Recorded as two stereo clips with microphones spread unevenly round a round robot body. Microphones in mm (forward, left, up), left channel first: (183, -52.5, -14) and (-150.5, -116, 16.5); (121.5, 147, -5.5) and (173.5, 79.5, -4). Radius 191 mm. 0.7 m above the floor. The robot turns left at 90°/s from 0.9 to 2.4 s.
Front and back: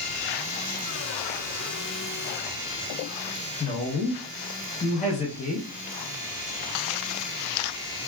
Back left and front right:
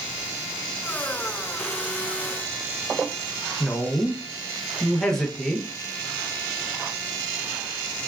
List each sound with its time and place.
3.6 s a woman speaking: 50° left, 0.6 m